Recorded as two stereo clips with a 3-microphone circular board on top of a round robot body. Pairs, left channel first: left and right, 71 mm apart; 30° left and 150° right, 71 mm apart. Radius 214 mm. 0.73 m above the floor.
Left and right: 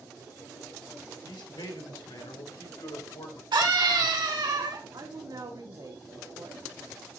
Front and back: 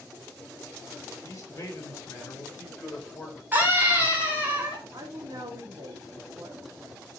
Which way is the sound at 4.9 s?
120° right.